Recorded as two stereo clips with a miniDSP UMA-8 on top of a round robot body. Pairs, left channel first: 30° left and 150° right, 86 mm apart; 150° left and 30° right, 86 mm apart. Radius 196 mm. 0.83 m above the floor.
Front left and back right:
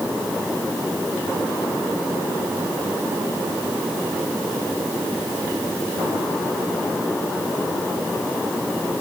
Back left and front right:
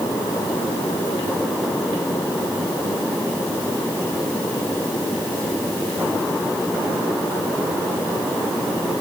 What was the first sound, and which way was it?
Only background noise.